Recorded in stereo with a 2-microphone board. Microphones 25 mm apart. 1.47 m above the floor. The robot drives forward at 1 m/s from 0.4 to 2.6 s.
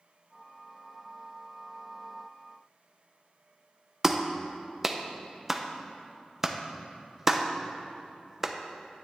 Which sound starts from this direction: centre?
A clap, at 4.0 s.